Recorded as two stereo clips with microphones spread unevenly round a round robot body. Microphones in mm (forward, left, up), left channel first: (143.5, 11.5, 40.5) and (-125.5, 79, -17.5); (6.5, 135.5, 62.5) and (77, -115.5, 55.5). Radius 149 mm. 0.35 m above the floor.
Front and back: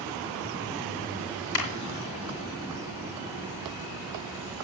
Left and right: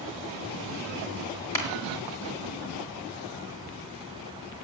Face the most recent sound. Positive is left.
turn(degrees=25)